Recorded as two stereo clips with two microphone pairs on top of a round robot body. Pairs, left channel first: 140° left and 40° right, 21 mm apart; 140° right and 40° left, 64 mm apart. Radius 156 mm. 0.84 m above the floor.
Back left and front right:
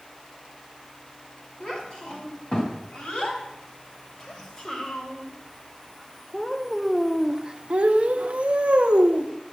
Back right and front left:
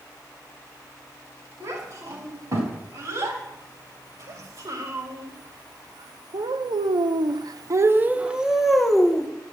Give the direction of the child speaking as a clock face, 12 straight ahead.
9 o'clock.